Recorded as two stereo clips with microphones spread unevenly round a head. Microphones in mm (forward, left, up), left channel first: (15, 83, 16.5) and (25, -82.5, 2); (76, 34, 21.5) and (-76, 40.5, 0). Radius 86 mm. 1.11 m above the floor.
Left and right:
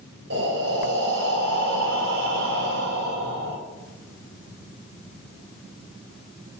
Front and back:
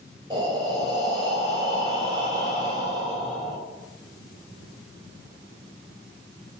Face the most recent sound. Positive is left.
turn(degrees=-115)